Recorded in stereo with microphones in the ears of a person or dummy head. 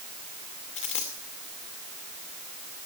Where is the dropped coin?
35° left (ahead or behind), 2 m.